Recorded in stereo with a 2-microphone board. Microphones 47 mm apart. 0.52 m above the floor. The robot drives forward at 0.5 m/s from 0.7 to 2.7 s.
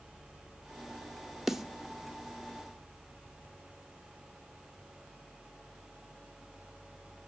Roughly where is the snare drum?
Centre.